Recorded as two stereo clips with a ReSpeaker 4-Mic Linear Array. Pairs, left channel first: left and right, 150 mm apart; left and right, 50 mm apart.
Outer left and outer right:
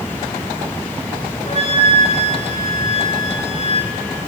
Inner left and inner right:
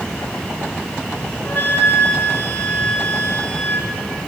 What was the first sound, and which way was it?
A flute, 45° left (ahead or behind).